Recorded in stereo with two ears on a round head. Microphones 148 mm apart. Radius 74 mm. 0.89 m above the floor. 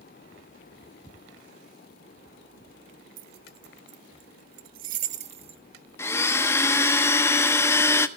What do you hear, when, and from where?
3.2 s keys jangling: 55° right (ahead or behind), 1.0 m; by 5.6 s 35° right (ahead or behind), 1.1 m
6.0 s a blender: 15° left (ahead or behind), 1.0 m